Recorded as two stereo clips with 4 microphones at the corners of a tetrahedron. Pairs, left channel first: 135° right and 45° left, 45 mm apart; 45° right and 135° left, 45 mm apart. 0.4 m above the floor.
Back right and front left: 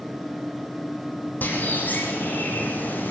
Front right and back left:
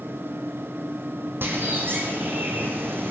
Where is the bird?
175° left, 4.5 m.